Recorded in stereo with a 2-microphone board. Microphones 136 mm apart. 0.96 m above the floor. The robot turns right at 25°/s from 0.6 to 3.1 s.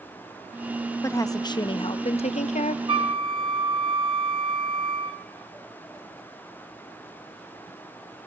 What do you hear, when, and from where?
1.0 s a woman speaking: 20° left, 0.6 m; by 2.8 s 65° left, 0.6 m
2.9 s a flute: 35° right (ahead or behind), 0.9 m; by 5.2 s 40° right (ahead or behind), 0.9 m